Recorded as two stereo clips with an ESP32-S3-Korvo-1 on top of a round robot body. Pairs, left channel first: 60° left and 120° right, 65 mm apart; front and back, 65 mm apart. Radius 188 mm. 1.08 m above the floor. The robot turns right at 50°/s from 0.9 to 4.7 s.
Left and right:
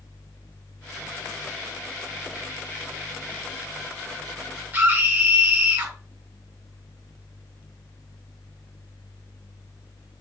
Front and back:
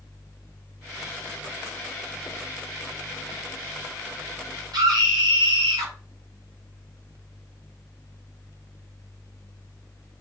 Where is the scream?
175° left, 5 m.